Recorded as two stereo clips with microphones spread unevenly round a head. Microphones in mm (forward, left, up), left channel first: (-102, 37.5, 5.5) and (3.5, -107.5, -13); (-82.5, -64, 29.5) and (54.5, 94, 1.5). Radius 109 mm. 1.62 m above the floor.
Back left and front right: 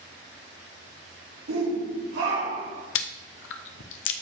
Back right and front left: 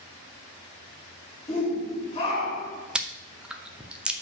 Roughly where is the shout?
Ahead right.